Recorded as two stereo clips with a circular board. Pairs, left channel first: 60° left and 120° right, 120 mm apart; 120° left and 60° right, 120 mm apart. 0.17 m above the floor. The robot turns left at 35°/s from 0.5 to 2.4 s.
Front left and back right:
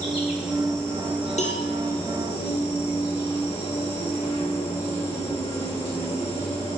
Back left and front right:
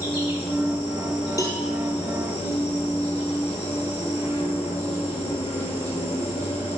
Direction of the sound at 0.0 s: 155° left.